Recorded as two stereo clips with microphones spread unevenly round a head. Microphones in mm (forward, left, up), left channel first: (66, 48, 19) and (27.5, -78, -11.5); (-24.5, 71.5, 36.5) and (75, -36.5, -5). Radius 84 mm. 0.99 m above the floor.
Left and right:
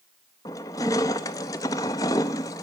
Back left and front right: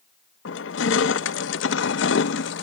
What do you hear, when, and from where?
0.5 s crushing: 145° left, 0.6 m